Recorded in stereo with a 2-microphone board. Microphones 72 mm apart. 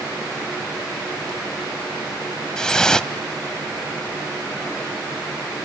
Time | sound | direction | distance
2.6 | dripping | 10° left (ahead or behind) | 0.8 m